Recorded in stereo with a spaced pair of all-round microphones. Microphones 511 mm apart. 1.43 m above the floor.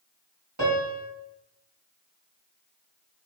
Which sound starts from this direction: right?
A piano, at 0.6 s.